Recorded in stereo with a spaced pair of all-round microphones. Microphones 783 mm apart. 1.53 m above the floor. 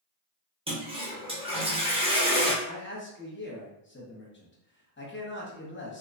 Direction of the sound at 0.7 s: 10° right (ahead or behind).